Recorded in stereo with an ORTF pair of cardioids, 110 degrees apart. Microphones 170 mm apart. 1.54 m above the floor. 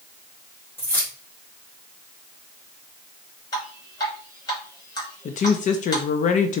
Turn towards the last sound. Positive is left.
turn(degrees=50)